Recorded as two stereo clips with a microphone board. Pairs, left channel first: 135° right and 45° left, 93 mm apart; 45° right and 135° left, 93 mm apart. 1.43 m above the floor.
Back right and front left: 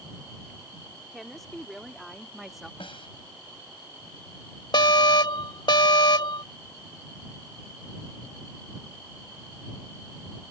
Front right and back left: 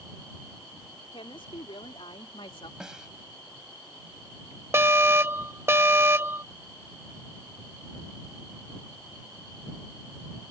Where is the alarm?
165° right.